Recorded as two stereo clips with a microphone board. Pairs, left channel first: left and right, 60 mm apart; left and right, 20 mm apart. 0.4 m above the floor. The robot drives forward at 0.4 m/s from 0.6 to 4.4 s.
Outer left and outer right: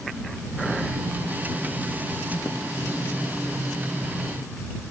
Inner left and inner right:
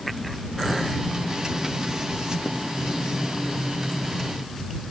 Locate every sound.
Only background noise.